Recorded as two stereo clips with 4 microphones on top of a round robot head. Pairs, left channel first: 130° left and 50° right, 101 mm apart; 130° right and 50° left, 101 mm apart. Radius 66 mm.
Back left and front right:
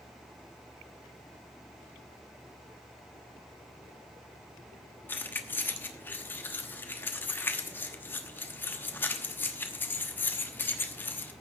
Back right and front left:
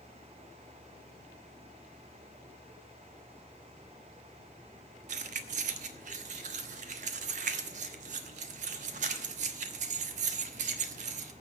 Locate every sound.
5.1 s keys jangling: 55° left, 1.0 m